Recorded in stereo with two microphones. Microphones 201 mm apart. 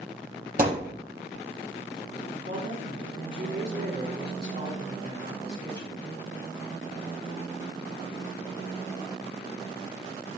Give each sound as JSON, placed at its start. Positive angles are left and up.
{"t": 0.6, "sound": "a thud", "side_deg": -45, "distance_m": 5.0}
{"t": 2.3, "sound": "a woman speaking", "side_deg": -65, "distance_m": 5.0}